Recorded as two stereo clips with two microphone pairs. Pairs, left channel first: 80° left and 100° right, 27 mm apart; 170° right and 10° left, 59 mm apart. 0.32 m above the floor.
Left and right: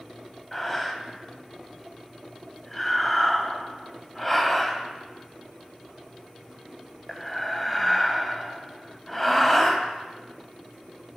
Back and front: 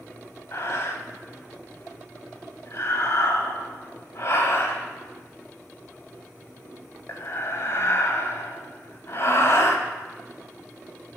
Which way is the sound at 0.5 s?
165° left.